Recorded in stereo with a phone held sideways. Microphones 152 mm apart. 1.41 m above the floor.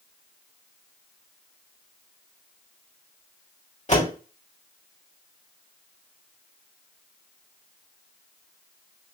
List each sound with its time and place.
3.9 s a door slam: 50° left (ahead or behind), 3 m